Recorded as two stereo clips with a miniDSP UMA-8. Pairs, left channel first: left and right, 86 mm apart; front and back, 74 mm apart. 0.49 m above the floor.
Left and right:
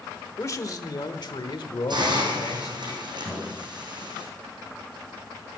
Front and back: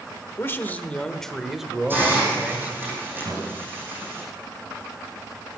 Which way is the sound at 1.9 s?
120° right.